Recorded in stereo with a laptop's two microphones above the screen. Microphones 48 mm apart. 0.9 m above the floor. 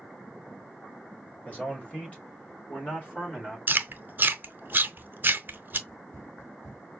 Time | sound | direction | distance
1.4 | a man speaking | 30° left (ahead or behind) | 1.3 m
3.7 | chewing | 45° right (ahead or behind) | 0.7 m
5.9 | running footsteps | 55° left (ahead or behind) | 1.6 m